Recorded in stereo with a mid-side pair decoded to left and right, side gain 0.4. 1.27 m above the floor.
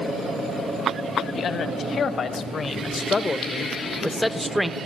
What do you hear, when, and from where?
1.4 s a man speaking: 70° left, 1.8 m; by 4.8 s 5° right, 0.9 m